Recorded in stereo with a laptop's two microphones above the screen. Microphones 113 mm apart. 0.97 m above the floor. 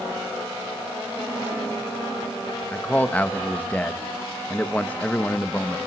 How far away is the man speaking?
About 1.2 m.